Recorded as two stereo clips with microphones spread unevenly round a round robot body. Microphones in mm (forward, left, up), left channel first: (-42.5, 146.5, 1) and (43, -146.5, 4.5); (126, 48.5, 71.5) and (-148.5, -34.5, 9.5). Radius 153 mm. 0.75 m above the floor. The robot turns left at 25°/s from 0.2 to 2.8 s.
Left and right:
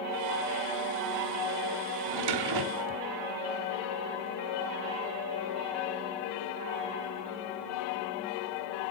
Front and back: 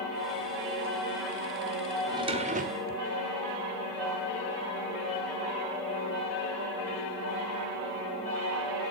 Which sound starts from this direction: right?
A drawer, at 2.1 s.